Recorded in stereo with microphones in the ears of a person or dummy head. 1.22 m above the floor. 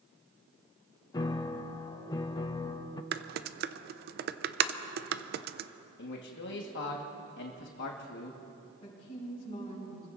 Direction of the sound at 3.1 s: 50° right (ahead or behind).